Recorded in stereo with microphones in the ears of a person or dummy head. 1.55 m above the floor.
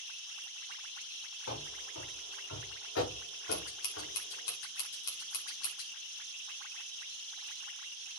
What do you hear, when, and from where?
1.5 s running footsteps: 80° left, 7 m
3.5 s scissors: 70° left (ahead or behind), 3 m